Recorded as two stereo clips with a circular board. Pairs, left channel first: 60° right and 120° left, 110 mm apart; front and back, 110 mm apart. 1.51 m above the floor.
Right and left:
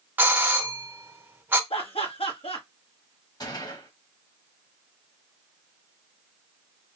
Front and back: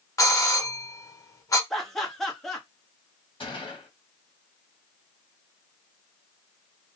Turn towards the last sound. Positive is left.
turn(degrees=-20)